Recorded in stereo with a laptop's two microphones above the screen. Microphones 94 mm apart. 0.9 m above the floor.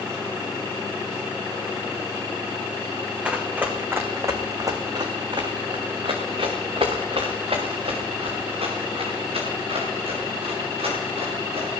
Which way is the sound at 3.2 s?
15° right (ahead or behind).